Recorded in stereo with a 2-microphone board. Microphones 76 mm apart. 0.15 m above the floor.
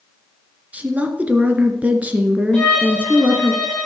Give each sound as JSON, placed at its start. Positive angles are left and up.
{"t": 0.7, "sound": "a woman speaking", "side_deg": -20, "distance_m": 2.0}
{"t": 2.5, "sound": "a violin", "side_deg": 10, "distance_m": 10.0}